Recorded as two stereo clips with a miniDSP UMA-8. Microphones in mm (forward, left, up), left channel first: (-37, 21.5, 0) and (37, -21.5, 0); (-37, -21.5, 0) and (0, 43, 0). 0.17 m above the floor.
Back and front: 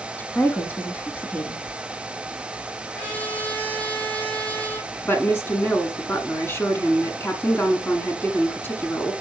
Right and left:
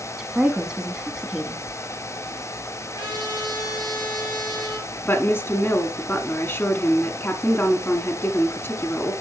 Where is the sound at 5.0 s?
165° right, 1.4 m.